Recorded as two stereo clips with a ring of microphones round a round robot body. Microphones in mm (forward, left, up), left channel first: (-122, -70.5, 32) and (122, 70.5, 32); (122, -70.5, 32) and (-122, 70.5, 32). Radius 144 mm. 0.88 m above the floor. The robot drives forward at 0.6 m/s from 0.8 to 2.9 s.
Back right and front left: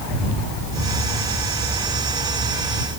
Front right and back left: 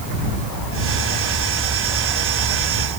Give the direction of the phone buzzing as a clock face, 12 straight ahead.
No phone buzzing in this recording.